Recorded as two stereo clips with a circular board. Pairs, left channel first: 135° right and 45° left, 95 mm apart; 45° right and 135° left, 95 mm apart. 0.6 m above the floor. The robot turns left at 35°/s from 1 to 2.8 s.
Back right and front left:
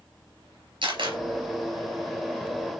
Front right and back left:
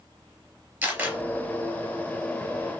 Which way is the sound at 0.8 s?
60° left.